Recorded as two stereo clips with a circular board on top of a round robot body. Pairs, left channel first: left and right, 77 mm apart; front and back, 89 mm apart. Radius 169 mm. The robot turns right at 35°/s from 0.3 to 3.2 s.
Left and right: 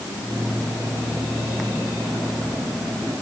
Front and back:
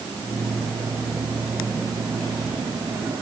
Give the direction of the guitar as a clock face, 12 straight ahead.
No guitar in this recording.